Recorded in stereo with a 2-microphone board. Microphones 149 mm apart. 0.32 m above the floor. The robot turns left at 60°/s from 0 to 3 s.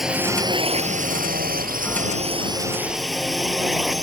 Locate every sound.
0.0 s a drone: centre (ahead or behind)